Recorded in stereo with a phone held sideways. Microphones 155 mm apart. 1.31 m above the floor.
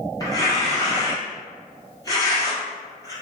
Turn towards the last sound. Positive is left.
turn(degrees=25)  # may be behind; listen again after turning